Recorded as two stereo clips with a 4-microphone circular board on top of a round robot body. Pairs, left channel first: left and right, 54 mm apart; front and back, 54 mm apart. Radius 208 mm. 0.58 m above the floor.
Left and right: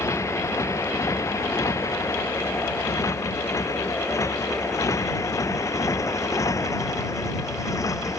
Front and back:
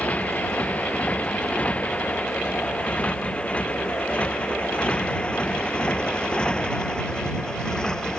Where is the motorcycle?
60° left; by 8.2 s 75° left.